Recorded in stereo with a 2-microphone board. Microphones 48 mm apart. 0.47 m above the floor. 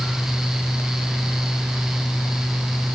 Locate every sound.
Only background noise.